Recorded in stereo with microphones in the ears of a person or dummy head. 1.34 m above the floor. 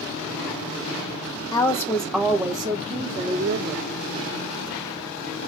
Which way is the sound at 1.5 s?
30° left (ahead or behind).